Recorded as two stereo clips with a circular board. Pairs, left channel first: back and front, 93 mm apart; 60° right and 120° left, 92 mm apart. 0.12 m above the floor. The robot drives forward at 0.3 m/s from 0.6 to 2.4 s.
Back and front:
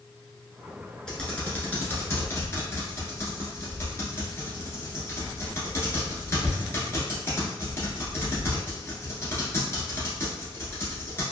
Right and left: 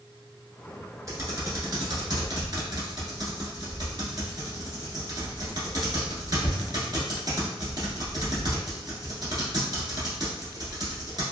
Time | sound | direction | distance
1.1 | typing on a keyboard | 105° left | 1.0 m